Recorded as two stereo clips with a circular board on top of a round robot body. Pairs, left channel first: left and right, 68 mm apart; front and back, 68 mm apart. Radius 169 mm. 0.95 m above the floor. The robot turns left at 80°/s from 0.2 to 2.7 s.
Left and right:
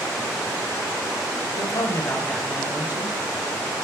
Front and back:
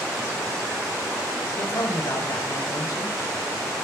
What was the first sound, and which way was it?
A man speaking, 65° left.